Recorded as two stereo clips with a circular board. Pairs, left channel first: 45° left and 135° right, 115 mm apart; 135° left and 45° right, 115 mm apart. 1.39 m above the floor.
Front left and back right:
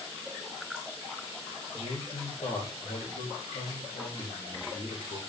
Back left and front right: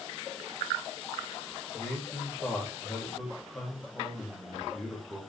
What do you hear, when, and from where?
1.7 s a man speaking: 55° left, 3 m